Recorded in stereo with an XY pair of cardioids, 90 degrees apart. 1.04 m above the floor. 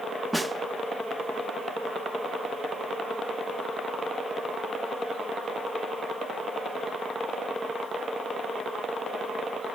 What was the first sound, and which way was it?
A snare drum, 10° right.